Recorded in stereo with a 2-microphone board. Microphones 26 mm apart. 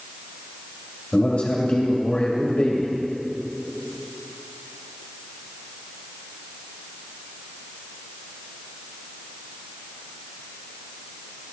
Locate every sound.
1.1 s a man speaking: 45° left (ahead or behind), 1.8 m